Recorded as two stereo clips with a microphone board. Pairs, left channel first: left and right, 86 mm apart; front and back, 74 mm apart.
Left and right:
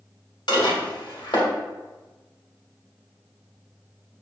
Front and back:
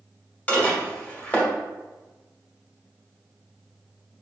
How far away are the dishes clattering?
About 1.5 m.